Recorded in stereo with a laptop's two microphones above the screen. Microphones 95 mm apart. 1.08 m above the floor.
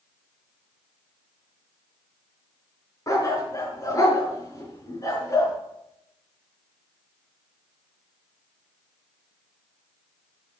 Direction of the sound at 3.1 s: 35° left (ahead or behind).